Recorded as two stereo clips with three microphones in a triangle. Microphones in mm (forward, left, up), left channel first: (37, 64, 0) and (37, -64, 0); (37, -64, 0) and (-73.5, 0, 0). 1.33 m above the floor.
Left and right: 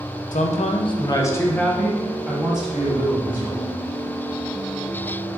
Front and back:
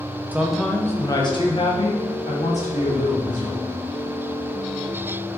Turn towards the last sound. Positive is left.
turn(degrees=-15)